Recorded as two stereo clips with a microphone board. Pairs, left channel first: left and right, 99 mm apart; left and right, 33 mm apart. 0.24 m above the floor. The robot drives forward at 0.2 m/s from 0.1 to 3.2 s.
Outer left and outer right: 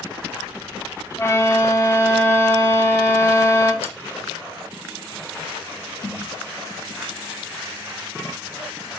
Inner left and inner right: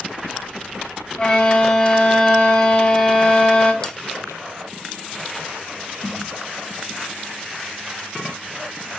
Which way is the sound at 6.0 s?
35° left (ahead or behind).